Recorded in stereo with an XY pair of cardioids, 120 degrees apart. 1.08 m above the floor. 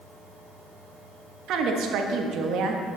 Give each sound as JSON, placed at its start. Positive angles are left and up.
{"t": 1.5, "sound": "a woman speaking", "azimuth_deg": -70, "distance_m": 1.0}